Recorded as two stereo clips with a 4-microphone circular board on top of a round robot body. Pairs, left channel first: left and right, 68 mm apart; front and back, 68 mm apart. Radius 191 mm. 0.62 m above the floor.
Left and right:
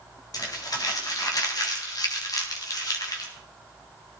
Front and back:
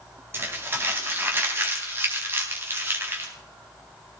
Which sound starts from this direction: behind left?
Crumpling, at 0.3 s.